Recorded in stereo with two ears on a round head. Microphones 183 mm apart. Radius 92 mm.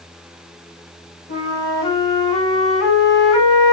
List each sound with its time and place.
1.3 s a flute: 35° left (ahead or behind), 5 m